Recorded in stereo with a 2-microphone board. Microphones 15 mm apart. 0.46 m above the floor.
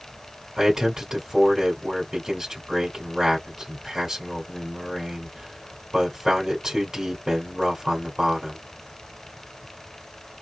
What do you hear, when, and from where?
0.6 s a man speaking: 40° right (ahead or behind), 1.8 m